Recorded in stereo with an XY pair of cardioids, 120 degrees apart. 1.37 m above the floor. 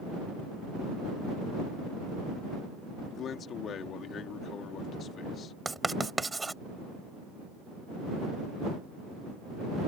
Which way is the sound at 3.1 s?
55° left.